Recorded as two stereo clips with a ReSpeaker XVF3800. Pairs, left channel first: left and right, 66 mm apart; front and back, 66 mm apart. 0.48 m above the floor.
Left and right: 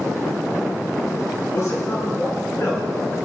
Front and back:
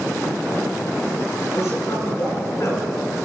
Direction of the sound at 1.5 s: 45° left.